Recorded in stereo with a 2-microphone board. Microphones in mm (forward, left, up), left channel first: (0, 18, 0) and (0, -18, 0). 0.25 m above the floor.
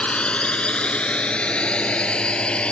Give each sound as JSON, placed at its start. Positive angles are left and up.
{"t": 0.0, "sound": "a drone", "side_deg": 30}